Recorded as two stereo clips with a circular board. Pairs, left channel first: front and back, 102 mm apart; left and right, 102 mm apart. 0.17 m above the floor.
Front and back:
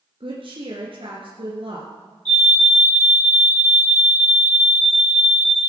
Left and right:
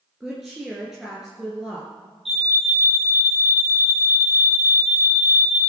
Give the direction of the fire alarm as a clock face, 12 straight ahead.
9 o'clock.